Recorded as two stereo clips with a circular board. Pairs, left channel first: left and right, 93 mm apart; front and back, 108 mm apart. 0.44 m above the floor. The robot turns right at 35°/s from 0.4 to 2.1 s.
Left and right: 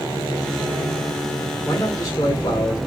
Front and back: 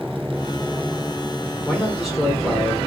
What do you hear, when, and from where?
1.6 s a man speaking: 80° left, 1.2 m; by 2.8 s 95° left, 1.2 m